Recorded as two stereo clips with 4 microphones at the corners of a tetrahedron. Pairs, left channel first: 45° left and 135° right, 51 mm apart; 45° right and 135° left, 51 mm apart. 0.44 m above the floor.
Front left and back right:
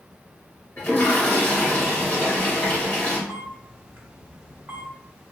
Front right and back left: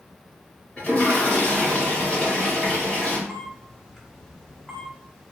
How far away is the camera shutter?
About 0.7 m.